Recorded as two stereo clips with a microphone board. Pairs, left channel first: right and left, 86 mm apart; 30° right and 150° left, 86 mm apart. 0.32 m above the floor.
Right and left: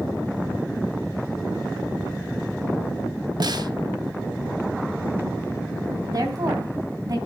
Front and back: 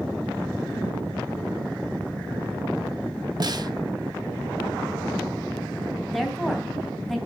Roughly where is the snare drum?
Behind left.